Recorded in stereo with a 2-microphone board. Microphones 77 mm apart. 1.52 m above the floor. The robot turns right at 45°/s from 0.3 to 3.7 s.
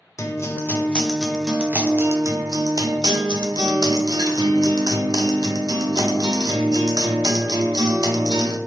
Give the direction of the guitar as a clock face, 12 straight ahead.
7 o'clock.